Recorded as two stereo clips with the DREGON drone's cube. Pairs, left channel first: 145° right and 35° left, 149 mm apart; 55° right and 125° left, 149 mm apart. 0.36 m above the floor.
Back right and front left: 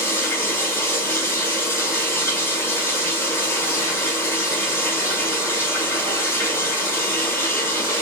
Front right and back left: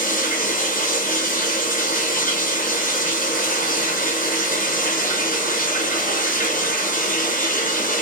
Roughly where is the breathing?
No breathing in this recording.